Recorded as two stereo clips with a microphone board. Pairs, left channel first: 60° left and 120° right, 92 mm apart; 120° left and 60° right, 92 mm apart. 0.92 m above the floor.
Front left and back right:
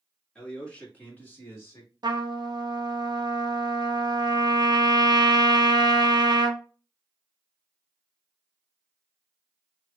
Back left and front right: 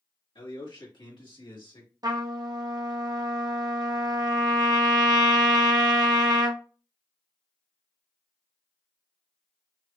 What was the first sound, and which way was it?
A man speaking, 140° left.